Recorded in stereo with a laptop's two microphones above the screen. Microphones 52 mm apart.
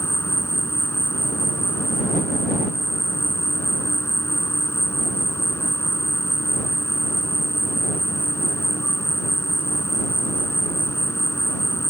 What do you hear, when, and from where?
0.0 s an insect: 60° left (ahead or behind)